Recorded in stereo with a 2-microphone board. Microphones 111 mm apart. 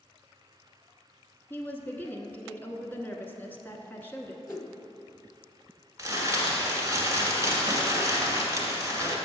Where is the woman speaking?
20° left (ahead or behind), 1.1 m.